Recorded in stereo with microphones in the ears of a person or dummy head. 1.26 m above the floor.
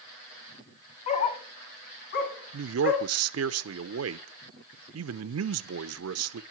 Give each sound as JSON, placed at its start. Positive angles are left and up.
{"t": 1.1, "sound": "a dog barking", "side_deg": 40, "distance_m": 2.0}
{"t": 2.5, "sound": "a man speaking", "side_deg": -70, "distance_m": 0.8}